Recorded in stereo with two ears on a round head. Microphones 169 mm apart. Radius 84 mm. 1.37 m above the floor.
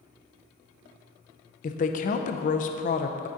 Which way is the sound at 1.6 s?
40° left (ahead or behind).